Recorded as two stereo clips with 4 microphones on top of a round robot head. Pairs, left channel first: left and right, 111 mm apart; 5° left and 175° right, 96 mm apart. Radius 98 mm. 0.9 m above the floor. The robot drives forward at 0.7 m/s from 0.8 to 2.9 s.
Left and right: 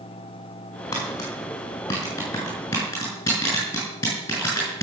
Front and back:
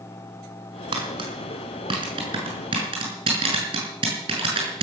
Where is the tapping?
155° left, 6.5 m; by 4.8 s 160° left, 8 m.